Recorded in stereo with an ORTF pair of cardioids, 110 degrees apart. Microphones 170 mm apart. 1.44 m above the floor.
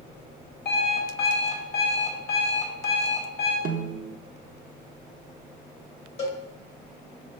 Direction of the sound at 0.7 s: 65° left.